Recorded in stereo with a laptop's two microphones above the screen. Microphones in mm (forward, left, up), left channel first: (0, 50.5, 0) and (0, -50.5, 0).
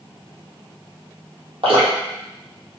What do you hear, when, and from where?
1.6 s dripping: 65° right (ahead or behind), 1.0 m